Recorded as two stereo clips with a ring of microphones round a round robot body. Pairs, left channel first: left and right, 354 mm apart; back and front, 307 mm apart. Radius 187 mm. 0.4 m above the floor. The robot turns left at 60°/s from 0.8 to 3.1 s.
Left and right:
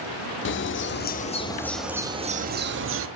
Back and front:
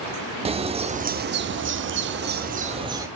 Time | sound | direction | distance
0.5 | a bird | 60° left | 0.7 m